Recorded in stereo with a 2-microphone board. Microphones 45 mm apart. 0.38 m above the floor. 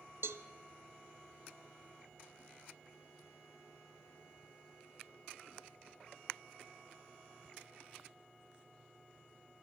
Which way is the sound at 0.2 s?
85° right.